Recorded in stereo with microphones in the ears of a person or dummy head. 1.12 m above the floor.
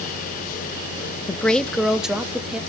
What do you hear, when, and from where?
1.3 s a woman speaking: 15° left (ahead or behind), 0.5 m; by 2.6 s 5° right (ahead or behind), 1.6 m